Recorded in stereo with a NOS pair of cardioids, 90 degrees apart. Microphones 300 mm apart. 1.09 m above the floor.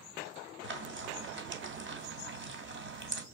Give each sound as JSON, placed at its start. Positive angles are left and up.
{"t": 0.6, "sound": "frying", "azimuth_deg": -40, "distance_m": 2.5}